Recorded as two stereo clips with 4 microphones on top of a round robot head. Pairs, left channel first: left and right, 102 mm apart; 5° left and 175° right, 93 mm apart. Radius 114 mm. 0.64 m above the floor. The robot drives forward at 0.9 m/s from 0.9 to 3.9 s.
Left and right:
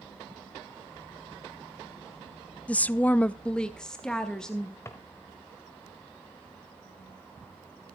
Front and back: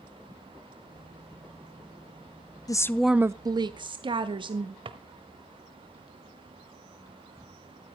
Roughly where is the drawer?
Behind.